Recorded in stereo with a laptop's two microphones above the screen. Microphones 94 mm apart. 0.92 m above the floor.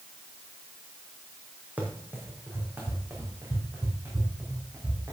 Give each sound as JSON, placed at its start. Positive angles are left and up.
{"t": 1.8, "sound": "running footsteps", "side_deg": -20, "distance_m": 2.0}